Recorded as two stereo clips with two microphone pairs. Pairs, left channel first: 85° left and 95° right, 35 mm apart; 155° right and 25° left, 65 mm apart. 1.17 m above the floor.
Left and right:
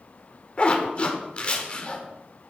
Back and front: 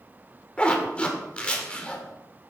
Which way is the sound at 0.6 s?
140° left.